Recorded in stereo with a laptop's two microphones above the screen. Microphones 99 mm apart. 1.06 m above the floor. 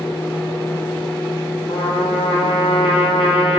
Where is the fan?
20° left (ahead or behind), 1.8 m.